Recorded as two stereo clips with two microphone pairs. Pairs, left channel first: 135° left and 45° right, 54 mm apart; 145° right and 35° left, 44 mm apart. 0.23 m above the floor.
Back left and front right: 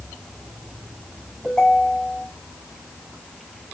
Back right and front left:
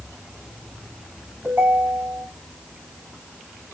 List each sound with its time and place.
1.4 s a ringtone: 60° left, 3.5 m